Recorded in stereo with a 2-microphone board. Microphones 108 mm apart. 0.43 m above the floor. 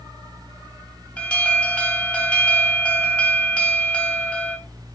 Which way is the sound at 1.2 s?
10° left (ahead or behind).